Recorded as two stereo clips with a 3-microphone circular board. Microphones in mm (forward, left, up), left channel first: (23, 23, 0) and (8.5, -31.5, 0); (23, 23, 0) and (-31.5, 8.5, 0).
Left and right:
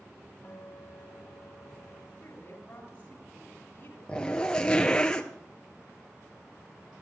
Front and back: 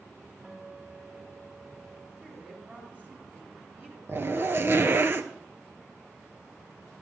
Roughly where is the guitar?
Behind left.